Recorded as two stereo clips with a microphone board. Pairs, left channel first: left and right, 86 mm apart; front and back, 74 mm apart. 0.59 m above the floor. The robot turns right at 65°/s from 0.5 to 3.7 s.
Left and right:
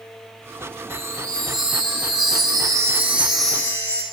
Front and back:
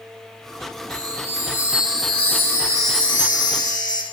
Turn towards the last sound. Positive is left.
turn(degrees=25)